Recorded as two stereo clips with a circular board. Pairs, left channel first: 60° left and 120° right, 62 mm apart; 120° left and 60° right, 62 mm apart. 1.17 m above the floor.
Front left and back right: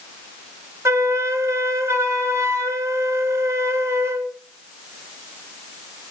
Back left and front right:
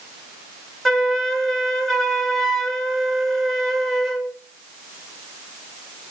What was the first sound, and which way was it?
A flute, 155° right.